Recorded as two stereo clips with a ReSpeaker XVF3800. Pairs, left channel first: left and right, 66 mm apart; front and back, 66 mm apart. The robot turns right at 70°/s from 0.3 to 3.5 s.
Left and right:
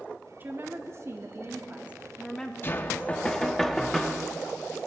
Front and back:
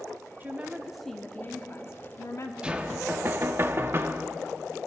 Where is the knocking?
115° left, 0.6 m; by 4.3 s 175° left, 0.6 m.